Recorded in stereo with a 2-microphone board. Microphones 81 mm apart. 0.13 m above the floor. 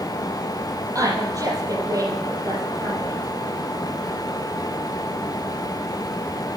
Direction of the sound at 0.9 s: 45° right (ahead or behind).